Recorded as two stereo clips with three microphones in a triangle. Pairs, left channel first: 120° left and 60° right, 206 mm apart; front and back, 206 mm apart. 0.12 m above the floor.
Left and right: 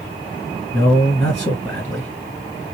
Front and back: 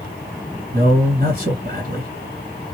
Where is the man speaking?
165° right, 2 m.